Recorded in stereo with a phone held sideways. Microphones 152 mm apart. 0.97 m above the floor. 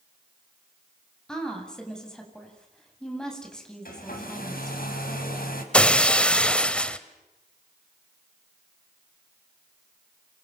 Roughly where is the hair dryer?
Left.